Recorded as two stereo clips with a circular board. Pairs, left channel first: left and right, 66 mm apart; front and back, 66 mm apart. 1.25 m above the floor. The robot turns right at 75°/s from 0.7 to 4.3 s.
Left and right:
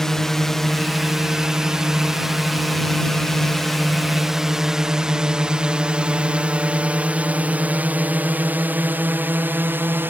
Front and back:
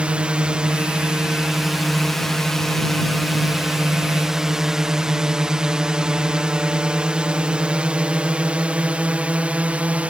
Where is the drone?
160° left; by 10.1 s 120° right.